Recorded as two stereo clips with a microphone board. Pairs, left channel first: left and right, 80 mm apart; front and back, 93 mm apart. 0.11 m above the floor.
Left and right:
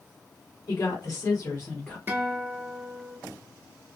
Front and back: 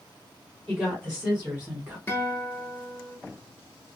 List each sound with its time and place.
0.7 s a woman speaking: 100° left, 2.5 m; by 2.0 s 135° left, 1.4 m
2.1 s a guitar: 40° right, 0.9 m